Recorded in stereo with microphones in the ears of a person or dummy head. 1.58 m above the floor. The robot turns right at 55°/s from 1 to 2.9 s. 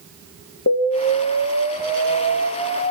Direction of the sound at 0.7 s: 60° left.